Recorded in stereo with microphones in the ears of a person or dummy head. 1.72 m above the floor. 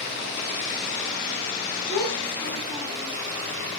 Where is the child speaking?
20° left (ahead or behind), 2 m.